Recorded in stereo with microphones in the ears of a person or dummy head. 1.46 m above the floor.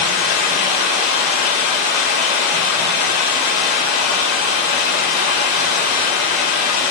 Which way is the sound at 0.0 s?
60° left (ahead or behind).